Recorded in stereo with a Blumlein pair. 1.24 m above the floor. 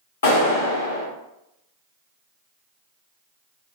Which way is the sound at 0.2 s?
70° left.